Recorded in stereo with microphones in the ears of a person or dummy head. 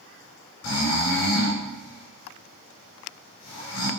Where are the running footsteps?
I don't hear running footsteps.